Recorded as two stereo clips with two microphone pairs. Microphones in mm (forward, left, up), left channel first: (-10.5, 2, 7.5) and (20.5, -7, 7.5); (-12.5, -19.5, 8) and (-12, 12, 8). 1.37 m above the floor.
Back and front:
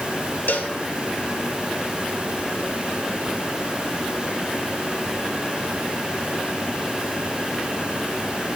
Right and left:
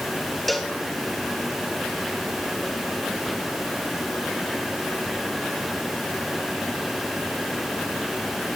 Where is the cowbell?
Straight behind, 1.5 m.